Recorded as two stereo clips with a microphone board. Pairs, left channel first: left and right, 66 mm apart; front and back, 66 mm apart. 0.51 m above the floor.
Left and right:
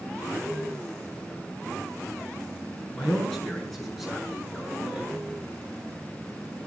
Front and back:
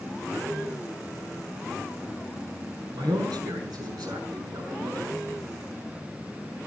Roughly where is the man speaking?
Behind.